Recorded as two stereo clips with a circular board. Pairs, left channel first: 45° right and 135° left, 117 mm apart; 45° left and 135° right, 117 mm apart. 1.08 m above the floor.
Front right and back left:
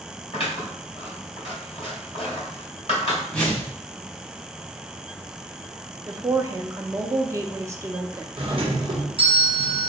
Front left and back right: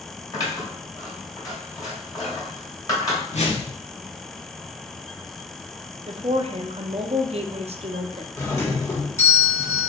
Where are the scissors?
10° right, 2 m.